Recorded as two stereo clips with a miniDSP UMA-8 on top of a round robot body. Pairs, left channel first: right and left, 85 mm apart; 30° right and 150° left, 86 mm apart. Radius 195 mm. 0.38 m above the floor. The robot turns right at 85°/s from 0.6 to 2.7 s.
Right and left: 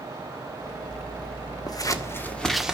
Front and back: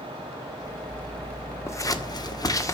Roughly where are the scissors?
Right.